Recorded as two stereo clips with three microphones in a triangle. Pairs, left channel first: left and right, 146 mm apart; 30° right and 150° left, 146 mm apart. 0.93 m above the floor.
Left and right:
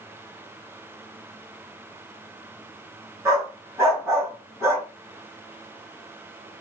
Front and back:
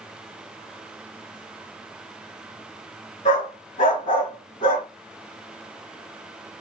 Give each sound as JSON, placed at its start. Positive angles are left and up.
{"t": 3.2, "sound": "a dog barking", "azimuth_deg": -20, "distance_m": 2.5}